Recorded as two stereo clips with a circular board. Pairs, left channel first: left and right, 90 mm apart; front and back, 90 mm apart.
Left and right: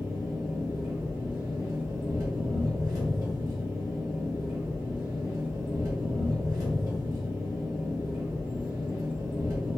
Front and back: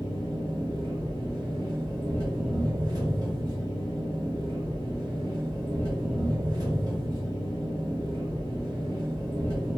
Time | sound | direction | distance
0.0 | an engine running | 140° right | 1.9 m